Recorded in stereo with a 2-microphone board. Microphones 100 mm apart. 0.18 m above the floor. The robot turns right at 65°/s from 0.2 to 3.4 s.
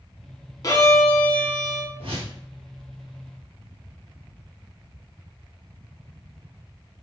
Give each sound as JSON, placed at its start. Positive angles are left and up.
{"t": 0.6, "sound": "a violin", "azimuth_deg": 115, "distance_m": 0.6}
{"t": 2.0, "sound": "a whoosh", "side_deg": -75, "distance_m": 1.3}